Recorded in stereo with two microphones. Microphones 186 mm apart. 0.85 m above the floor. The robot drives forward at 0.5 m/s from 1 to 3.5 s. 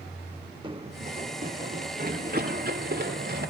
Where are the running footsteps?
25° right (ahead or behind), 1.5 m; by 3.5 s 55° right (ahead or behind), 6 m.